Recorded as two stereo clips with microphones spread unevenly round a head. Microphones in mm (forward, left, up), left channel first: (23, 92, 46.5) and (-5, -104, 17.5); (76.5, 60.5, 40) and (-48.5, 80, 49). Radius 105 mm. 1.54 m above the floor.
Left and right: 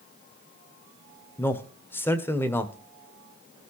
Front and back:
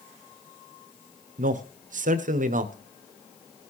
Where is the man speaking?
165° left, 1.3 m.